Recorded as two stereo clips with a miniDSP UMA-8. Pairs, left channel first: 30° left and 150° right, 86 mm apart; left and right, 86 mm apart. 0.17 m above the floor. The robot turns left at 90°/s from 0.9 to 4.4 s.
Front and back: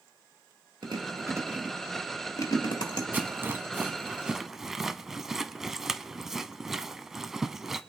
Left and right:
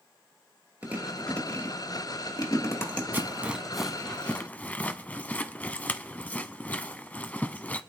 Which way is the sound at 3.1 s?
115° right.